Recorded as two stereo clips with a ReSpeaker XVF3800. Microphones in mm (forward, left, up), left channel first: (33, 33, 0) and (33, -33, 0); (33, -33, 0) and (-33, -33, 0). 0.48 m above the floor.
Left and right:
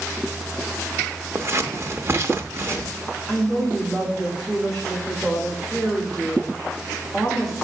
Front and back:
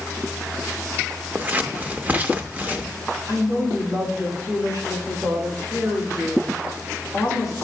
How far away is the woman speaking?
About 3 m.